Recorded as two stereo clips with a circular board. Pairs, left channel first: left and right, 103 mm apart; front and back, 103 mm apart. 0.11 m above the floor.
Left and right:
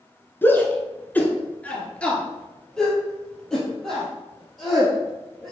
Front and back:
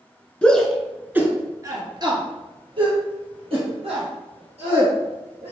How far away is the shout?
About 1.4 m.